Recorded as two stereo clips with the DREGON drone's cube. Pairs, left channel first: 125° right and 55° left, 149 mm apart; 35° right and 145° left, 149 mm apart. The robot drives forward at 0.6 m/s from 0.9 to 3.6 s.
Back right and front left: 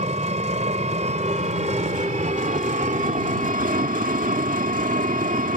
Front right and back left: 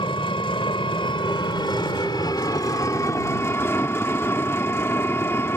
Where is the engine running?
20° left; by 5.6 s 40° left.